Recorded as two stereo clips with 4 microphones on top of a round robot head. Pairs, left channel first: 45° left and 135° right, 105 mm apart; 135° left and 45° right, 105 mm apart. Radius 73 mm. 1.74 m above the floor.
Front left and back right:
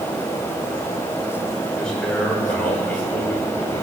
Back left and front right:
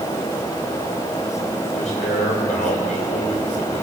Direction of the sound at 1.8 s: 130° left.